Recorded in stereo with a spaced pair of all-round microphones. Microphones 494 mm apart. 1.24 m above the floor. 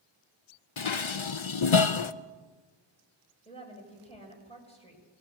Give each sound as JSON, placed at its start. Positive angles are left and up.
{"t": 0.8, "sound": "dishes clattering", "side_deg": 70, "distance_m": 0.7}
{"t": 3.5, "sound": "a woman speaking", "side_deg": 10, "distance_m": 6.0}